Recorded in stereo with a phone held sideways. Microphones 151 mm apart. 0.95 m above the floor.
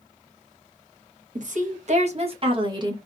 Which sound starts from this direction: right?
A woman speaking, at 1.4 s.